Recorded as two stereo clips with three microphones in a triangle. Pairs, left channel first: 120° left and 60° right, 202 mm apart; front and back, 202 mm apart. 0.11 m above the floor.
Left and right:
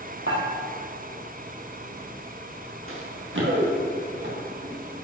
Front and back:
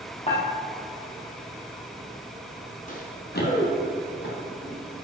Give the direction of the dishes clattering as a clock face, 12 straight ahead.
2 o'clock.